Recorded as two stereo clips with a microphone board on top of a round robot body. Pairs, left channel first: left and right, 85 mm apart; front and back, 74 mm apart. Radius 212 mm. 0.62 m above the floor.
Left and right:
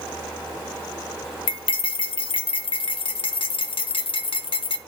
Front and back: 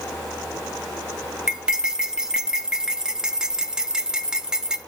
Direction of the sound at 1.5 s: 100° left.